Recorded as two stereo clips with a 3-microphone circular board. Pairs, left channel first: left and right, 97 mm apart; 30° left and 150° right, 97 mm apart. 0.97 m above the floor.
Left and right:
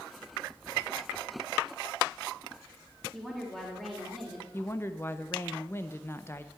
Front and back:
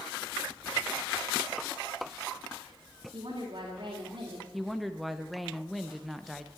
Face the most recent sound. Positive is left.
turn(degrees=115)